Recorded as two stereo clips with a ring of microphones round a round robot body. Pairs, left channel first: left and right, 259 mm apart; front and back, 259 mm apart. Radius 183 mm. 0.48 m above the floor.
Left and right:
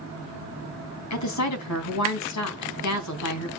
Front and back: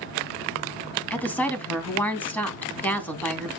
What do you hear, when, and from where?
1.1 s a woman speaking: 85° left, 3.5 m